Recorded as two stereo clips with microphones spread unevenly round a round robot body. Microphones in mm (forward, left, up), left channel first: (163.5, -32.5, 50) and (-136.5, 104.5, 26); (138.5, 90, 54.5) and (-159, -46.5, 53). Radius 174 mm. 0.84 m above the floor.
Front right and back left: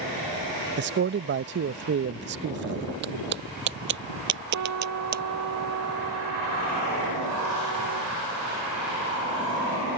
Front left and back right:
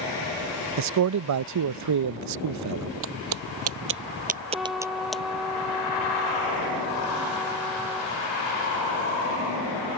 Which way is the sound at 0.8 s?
160° right.